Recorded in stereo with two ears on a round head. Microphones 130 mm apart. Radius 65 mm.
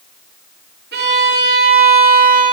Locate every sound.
0.9 s a violin: 75° right (ahead or behind), 3.5 m